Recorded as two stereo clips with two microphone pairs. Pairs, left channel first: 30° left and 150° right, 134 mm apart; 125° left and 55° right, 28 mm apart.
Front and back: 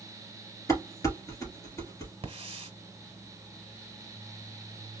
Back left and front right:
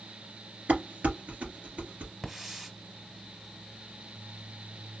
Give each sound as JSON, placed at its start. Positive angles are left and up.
{"t": 0.7, "sound": "dishes clattering", "azimuth_deg": -40, "distance_m": 2.5}
{"t": 2.2, "sound": "a hiss", "azimuth_deg": -125, "distance_m": 1.5}